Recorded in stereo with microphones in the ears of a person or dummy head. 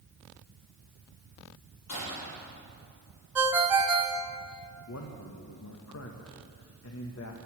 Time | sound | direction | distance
1.9 | a gunshot | 80° left | 6.5 m
3.4 | a ringtone | 15° right (ahead or behind) | 0.9 m
4.9 | a man speaking | 80° left | 1.5 m